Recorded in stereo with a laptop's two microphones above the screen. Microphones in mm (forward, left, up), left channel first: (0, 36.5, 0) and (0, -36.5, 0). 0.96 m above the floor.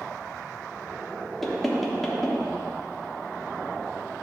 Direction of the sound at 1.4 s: 5° left (ahead or behind).